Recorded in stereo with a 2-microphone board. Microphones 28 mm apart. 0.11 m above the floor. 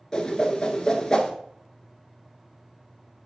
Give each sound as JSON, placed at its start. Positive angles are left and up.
{"t": 0.1, "sound": "a whoosh", "side_deg": 20, "distance_m": 1.1}